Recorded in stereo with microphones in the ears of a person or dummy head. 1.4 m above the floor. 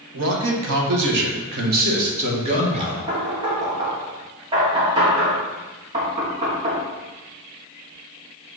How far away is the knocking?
About 1.5 m.